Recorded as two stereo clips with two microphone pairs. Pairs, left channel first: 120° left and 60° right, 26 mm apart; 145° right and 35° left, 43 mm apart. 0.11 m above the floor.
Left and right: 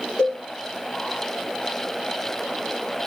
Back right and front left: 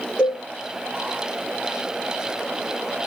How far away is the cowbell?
About 2.5 m.